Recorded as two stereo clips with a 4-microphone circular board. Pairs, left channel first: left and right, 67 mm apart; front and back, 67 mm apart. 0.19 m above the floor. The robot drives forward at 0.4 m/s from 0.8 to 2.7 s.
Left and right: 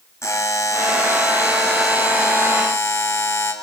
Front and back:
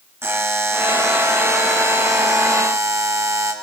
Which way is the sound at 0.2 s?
130° left.